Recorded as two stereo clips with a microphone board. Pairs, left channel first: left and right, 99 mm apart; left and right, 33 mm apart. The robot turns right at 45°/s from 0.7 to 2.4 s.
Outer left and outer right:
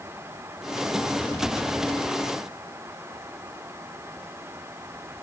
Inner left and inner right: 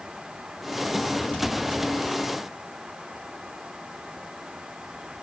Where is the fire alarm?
I don't hear a fire alarm.